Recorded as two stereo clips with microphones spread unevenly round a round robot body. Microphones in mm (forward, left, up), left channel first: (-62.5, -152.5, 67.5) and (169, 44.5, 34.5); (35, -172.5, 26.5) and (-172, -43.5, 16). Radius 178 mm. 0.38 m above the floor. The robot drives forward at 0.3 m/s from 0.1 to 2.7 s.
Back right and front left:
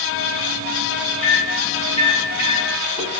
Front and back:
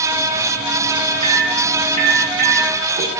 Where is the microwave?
130° left, 0.8 m; by 3.2 s 160° left, 1.0 m.